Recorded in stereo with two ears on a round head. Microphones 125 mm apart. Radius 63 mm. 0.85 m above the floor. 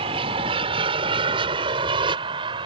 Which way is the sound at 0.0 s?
40° right (ahead or behind).